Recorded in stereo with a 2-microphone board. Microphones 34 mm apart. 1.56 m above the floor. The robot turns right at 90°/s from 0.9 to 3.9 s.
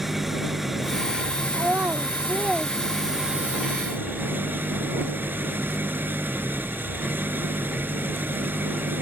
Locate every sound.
0.0 s an engine running: 10° right; by 9.0 s 100° right
1.5 s a child speaking: 60° right (ahead or behind); by 3.6 s 65° left (ahead or behind)